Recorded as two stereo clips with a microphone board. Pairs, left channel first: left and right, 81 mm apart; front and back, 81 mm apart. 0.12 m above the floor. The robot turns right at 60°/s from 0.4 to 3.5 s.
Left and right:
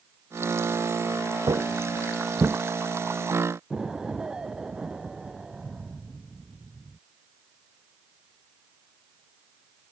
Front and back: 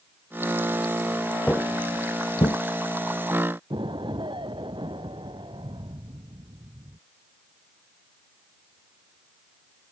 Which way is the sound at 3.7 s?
170° right.